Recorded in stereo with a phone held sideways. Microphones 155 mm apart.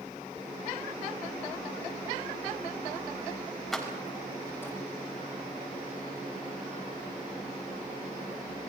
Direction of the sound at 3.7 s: Centre (ahead or behind).